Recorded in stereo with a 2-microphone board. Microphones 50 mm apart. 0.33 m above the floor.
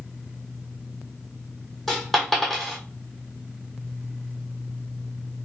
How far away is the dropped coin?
About 1.6 m.